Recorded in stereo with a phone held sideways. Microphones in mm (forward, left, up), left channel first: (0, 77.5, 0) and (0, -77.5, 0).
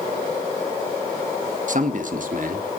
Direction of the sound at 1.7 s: 55° right (ahead or behind).